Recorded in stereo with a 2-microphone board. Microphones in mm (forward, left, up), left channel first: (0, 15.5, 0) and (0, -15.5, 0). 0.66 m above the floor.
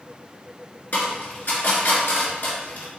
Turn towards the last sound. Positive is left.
turn(degrees=65)  # may be behind; listen again after turning